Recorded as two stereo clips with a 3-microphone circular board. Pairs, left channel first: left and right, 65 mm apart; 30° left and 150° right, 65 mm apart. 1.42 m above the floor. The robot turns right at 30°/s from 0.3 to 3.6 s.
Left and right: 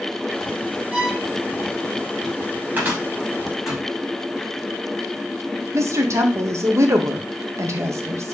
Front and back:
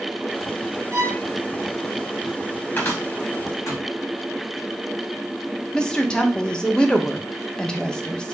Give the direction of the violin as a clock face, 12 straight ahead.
5 o'clock.